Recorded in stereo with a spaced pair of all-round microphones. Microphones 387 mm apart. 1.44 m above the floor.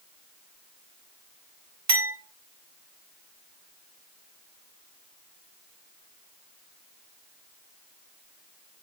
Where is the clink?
50° right (ahead or behind), 2.5 m.